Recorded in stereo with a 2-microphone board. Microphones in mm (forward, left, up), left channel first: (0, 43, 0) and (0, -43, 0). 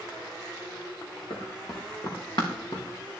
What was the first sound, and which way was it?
Running footsteps, 55° left (ahead or behind).